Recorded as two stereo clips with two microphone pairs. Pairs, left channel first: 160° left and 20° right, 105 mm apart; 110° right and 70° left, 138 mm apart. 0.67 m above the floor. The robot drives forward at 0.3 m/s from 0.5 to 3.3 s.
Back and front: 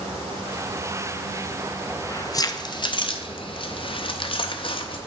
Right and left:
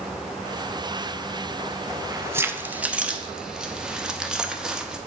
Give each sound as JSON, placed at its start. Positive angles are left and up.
{"t": 1.9, "sound": "keys jangling", "azimuth_deg": 115, "distance_m": 0.5}